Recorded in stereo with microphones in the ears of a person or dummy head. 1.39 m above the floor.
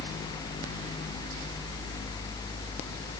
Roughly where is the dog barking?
No dog barking in this recording.